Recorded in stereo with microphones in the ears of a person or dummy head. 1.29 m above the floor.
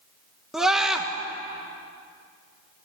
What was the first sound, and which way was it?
A scream, 5° right (ahead or behind).